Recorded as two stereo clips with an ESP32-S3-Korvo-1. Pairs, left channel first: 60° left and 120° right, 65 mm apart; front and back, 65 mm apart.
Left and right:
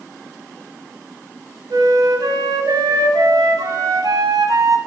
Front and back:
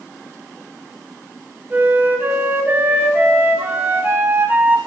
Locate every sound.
1.7 s a flute: 120° right, 0.8 m